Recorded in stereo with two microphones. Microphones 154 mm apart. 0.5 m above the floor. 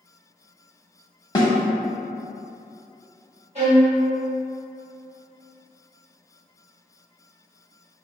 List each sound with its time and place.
1.4 s a snare drum: 25° left (ahead or behind), 0.8 m
3.5 s a violin: 45° right (ahead or behind), 1.6 m